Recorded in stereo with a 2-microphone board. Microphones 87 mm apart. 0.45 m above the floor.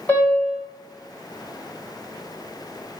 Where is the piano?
20° left (ahead or behind), 1.2 m.